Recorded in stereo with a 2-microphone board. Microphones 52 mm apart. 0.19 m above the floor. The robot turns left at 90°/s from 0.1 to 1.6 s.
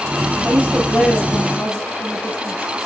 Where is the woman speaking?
125° right, 4.5 m; by 2.9 s 135° left, 4.5 m.